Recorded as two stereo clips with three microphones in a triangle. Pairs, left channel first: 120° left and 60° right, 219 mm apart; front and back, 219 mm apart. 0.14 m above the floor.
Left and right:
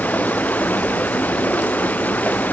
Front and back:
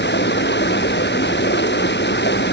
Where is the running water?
35° left.